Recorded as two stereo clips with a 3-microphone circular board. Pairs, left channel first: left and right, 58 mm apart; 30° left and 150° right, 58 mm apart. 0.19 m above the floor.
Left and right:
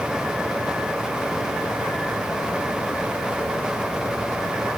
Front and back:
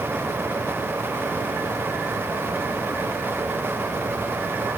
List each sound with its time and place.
Only background noise.